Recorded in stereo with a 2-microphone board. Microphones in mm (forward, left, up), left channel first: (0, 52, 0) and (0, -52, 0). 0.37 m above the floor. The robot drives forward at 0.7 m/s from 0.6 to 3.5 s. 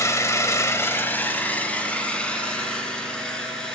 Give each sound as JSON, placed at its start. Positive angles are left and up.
{"t": 0.0, "sound": "an engine running", "side_deg": 25, "distance_m": 0.7}